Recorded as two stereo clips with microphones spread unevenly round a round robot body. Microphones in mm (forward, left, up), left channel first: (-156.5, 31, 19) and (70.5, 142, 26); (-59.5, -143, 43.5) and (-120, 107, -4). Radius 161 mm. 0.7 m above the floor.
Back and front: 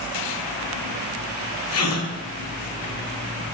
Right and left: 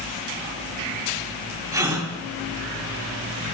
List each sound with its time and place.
1.7 s a gasp: 175° right, 4.5 m